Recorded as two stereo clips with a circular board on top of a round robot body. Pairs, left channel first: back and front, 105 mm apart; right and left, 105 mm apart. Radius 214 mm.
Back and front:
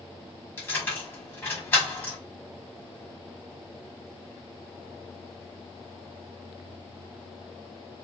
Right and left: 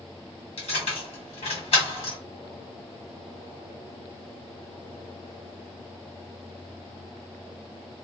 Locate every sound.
0.6 s keys jangling: 110° right, 1.5 m